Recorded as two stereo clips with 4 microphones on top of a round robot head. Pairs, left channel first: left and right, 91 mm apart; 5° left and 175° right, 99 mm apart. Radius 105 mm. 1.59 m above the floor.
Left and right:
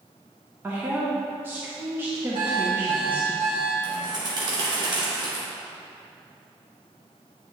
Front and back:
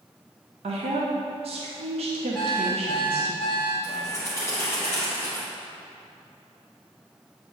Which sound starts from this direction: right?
An alarm clock, at 2.4 s.